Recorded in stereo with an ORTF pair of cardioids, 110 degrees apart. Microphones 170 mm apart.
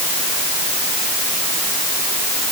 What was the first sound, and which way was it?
Only background noise.